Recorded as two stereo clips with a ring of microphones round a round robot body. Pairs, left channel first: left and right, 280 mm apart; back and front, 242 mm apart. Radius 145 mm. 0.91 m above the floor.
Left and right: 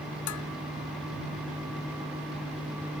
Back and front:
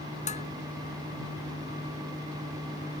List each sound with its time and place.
0.3 s dishes clattering: 120° left